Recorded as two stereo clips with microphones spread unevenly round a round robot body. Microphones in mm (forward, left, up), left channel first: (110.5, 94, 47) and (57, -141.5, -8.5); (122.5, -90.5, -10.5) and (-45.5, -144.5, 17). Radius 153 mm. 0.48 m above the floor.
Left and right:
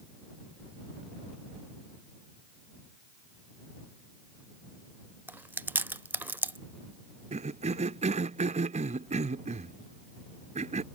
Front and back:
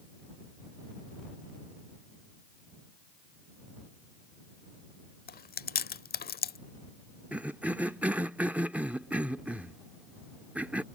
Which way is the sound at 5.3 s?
20° right.